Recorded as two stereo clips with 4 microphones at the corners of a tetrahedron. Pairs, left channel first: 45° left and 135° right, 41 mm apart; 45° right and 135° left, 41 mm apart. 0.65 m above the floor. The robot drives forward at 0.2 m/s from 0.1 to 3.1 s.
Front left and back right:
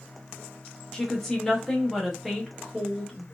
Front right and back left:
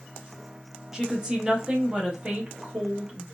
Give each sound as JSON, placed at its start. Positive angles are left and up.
{"t": 0.9, "sound": "a woman speaking", "azimuth_deg": 100, "distance_m": 0.8}